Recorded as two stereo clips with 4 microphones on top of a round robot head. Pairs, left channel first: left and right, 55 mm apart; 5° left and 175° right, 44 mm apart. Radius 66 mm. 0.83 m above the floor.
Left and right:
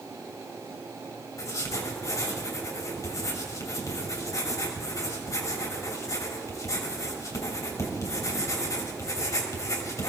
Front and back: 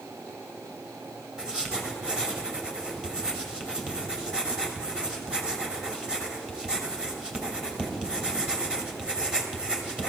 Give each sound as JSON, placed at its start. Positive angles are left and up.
{"t": 1.4, "sound": "writing", "azimuth_deg": 115, "distance_m": 3.0}